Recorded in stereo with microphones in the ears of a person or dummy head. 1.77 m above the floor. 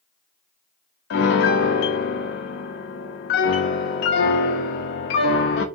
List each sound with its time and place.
1.1 s a piano: 55° left (ahead or behind), 0.6 m